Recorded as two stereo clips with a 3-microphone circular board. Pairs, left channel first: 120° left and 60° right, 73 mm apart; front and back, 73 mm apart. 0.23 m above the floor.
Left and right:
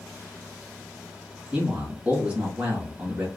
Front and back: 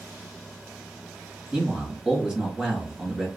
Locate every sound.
1.5 s a man speaking: 110° right, 1.7 m